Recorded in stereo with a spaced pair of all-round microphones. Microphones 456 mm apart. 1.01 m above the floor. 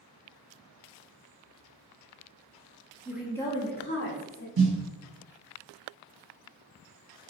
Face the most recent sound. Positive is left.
turn(degrees=-50)  # may be behind; listen again after turning